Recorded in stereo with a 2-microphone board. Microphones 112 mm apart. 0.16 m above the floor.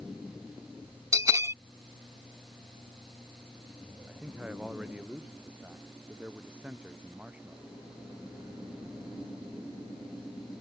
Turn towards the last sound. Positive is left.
turn(degrees=-10)  # may be behind; listen again after turning